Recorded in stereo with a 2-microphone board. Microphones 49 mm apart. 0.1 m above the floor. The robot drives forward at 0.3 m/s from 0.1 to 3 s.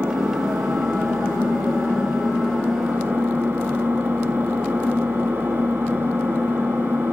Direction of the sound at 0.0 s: 65° right (ahead or behind).